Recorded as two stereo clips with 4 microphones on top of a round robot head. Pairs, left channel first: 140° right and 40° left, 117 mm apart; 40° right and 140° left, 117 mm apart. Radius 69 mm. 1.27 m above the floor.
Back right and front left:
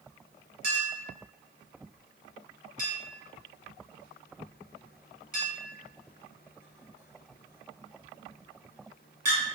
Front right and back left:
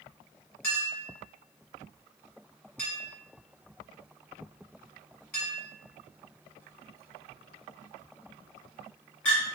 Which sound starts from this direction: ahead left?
A clink, at 0.6 s.